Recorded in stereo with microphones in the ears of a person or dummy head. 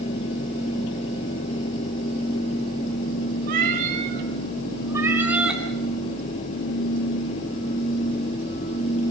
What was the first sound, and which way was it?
A cat meowing, 50° right (ahead or behind).